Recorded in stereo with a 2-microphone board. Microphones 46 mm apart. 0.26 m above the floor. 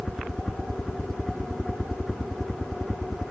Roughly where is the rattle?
No rattle in this recording.